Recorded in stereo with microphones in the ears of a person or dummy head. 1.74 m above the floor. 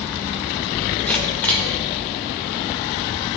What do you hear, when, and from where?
1.1 s a camera shutter: 5° left (ahead or behind), 1.8 m